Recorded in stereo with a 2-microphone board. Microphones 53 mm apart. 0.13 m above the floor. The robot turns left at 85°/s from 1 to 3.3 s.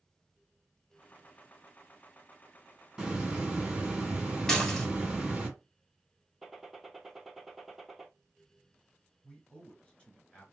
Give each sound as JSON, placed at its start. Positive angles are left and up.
{"t": 3.0, "sound": "a hiss", "side_deg": -5, "distance_m": 1.6}
{"t": 4.5, "sound": "dishes clattering", "side_deg": 10, "distance_m": 1.5}
{"t": 6.4, "sound": "a gunshot", "side_deg": -5, "distance_m": 0.9}
{"t": 9.2, "sound": "a man speaking", "side_deg": 25, "distance_m": 2.0}